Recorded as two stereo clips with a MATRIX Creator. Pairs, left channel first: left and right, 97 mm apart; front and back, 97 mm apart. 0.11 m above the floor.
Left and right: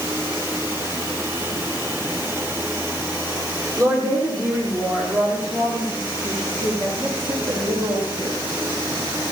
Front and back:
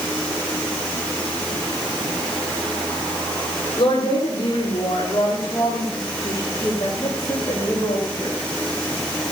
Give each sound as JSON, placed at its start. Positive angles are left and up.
{"t": 3.8, "sound": "a woman speaking", "azimuth_deg": -35, "distance_m": 6.0}